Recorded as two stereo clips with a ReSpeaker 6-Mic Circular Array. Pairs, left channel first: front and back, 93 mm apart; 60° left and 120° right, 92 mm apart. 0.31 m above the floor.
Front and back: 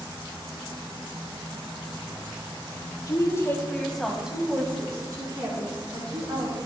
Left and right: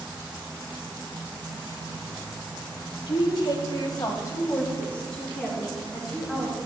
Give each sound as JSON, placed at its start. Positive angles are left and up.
{"t": 3.1, "sound": "a woman speaking", "azimuth_deg": 45, "distance_m": 2.5}